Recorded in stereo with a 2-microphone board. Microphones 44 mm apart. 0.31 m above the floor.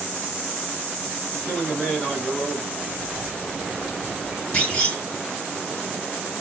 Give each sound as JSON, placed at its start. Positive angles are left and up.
{"t": 1.4, "sound": "a man speaking", "side_deg": 25, "distance_m": 1.4}
{"t": 2.8, "sound": "whispering", "side_deg": 0, "distance_m": 1.9}
{"t": 4.5, "sound": "a clunk", "side_deg": 20, "distance_m": 1.9}